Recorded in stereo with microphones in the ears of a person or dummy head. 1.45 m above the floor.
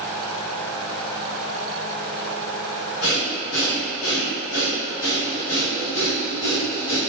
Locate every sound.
3.0 s breathing: 80° left, 1.9 m